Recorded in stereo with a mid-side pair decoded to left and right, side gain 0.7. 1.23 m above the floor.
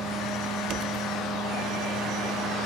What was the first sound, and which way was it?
A fan, 15° left.